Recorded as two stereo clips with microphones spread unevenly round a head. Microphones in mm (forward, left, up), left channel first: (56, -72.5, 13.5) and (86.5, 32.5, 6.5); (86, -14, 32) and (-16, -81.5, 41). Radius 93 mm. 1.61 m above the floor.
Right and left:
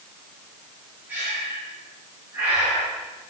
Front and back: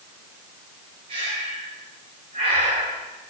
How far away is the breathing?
About 4 m.